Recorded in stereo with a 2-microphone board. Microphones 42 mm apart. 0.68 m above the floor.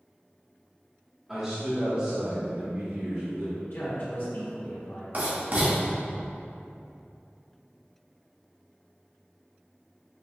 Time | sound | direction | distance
1.3 | a man speaking | 15° right (ahead or behind) | 1.5 m
3.6 | a man speaking | 65° left (ahead or behind) | 1.7 m
5.1 | writing | 50° right (ahead or behind) | 1.4 m